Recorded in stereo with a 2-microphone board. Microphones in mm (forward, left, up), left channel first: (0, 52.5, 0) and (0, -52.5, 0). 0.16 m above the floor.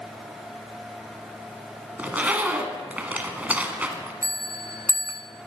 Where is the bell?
30° right (ahead or behind), 1.0 m.